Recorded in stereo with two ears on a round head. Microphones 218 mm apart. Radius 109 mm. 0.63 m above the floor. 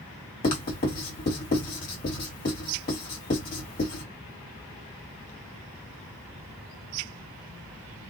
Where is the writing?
35° left (ahead or behind), 1.8 m.